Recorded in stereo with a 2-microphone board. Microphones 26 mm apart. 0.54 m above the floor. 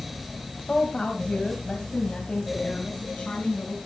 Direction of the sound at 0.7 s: 20° left (ahead or behind).